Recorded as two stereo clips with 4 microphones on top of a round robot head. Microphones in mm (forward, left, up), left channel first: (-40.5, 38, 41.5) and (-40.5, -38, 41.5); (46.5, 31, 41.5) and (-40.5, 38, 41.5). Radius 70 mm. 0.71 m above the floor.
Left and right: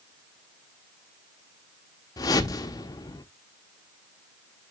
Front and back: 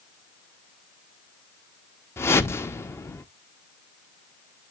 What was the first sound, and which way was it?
A whoosh, 55° left.